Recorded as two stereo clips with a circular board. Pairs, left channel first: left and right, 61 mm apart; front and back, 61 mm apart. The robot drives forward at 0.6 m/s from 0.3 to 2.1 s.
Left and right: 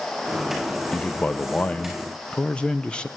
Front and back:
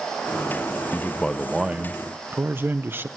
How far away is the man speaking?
About 0.6 m.